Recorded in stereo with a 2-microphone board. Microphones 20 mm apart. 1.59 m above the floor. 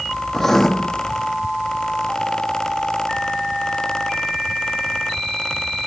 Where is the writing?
20° left (ahead or behind), 1.0 m.